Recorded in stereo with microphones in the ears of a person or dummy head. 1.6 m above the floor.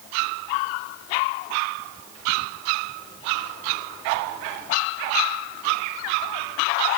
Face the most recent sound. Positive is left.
No sound to turn to.